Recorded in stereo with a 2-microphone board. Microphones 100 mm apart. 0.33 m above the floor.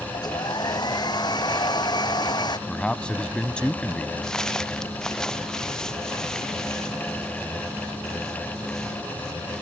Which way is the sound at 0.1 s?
45° left (ahead or behind).